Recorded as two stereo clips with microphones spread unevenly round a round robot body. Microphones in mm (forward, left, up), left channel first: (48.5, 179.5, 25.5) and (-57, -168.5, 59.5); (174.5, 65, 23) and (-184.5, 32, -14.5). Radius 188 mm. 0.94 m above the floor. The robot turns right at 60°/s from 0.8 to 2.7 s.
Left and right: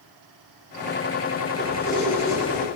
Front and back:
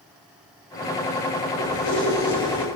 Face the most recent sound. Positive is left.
turn(degrees=40)